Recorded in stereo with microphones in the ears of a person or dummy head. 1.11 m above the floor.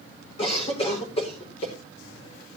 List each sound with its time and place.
0.4 s a cough: 30° left (ahead or behind), 5.5 m